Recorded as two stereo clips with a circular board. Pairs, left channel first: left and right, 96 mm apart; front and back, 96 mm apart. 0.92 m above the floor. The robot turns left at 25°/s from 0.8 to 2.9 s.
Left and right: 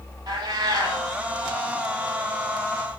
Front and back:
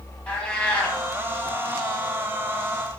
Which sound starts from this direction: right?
A cat meowing, at 0.3 s.